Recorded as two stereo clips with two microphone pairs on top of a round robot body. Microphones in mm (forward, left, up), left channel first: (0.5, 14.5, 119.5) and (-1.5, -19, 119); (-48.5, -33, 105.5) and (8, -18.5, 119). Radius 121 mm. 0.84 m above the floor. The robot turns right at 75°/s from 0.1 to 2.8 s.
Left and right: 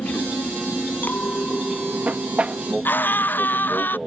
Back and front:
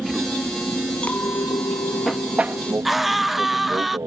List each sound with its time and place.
0.0 s an aircraft: 105° left; by 4.1 s 5° right
1.0 s a clink: 120° left; by 2.8 s 110° right
2.9 s a scream: 105° left